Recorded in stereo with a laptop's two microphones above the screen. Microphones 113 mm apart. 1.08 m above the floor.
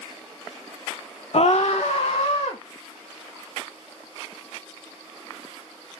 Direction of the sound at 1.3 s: 60° left (ahead or behind).